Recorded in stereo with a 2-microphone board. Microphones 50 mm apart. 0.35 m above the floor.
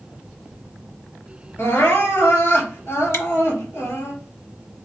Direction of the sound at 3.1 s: 65° left (ahead or behind).